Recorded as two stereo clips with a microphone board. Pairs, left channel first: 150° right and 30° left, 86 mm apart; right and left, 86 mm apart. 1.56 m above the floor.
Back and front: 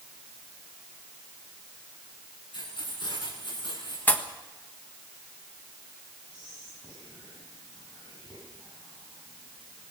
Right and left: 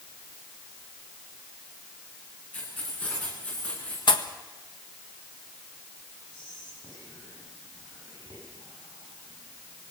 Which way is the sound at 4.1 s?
80° right.